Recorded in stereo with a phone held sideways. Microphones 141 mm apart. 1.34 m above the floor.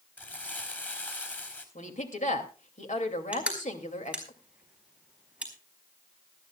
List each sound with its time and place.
0.2 s crumpling: 10° left (ahead or behind), 3.5 m
1.8 s a woman speaking: 60° left (ahead or behind), 2.5 m
3.3 s crushing: 10° right (ahead or behind), 4.5 m